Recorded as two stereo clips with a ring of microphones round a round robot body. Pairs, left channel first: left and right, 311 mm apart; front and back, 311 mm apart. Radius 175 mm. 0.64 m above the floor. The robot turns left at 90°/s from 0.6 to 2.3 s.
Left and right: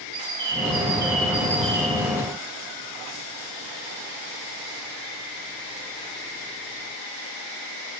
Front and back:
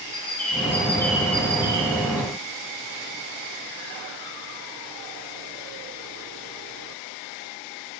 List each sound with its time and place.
0.1 s a bird: 45° right, 3 m; by 2.2 s 165° left, 3 m